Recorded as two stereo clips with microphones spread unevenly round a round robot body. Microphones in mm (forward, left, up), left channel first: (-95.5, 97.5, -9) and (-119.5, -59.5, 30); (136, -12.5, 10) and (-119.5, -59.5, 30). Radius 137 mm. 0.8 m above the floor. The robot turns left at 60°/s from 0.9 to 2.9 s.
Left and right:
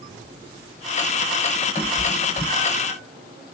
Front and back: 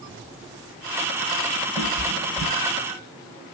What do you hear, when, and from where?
1.8 s a cat meowing: 160° right, 2.5 m; by 3.0 s 130° left, 2.5 m